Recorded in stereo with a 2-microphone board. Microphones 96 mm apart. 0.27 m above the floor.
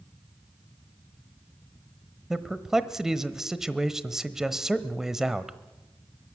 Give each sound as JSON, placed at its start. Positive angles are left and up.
{"t": 2.3, "sound": "a man speaking", "side_deg": -5, "distance_m": 1.1}